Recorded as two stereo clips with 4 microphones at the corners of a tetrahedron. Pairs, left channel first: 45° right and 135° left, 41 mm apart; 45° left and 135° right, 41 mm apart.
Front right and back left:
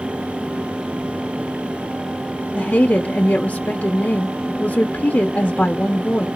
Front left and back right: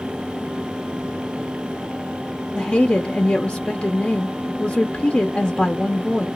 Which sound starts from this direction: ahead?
A woman speaking, at 2.5 s.